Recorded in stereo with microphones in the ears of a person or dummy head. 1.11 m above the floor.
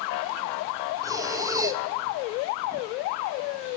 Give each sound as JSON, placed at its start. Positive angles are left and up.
{"t": 1.0, "sound": "breathing", "side_deg": -15, "distance_m": 1.8}